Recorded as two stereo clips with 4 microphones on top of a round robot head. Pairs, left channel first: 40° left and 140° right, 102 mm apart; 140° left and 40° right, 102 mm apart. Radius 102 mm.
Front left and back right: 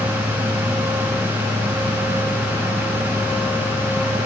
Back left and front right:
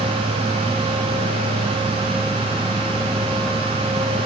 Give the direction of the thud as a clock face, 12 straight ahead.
No thud in this recording.